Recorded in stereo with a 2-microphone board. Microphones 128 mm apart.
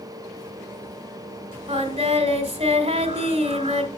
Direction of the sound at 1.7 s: 45° right (ahead or behind).